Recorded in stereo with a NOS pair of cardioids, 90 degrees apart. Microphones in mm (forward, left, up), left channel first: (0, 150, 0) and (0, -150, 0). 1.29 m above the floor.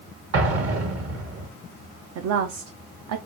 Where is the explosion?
50° right, 1.3 m.